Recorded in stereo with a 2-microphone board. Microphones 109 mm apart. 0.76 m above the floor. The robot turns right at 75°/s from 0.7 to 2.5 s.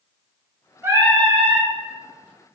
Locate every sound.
0.8 s singing: 150° right, 0.7 m; by 1.7 s 85° right, 0.7 m